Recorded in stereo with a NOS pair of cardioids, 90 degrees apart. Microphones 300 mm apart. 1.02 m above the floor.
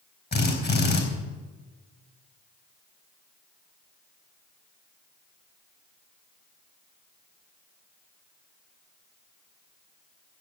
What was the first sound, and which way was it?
A drill, 35° left.